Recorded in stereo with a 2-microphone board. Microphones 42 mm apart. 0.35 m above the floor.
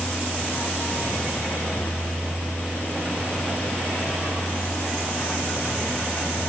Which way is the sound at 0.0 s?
80° left.